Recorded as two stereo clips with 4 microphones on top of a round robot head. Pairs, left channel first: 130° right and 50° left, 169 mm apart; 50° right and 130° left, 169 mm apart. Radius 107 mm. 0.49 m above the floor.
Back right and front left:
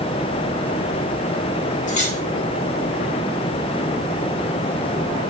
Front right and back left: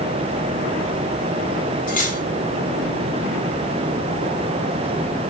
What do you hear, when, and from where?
1.9 s cutlery clinking: 85° right, 1.7 m